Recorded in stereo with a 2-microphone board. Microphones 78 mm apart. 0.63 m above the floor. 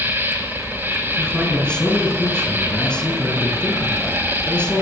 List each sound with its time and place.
0.0 s an insect: 25° right (ahead or behind), 5 m
1.2 s a man speaking: 15° left (ahead or behind), 8 m